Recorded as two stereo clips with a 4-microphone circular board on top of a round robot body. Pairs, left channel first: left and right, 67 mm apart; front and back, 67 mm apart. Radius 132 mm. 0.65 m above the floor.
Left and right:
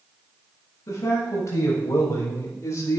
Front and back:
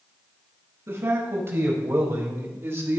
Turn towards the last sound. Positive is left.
turn(degrees=130)